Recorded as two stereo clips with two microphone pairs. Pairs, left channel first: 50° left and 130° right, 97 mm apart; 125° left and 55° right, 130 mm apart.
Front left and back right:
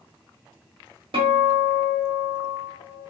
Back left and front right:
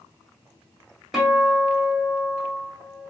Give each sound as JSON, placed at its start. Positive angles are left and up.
{"t": 1.1, "sound": "a guitar", "azimuth_deg": -145, "distance_m": 1.3}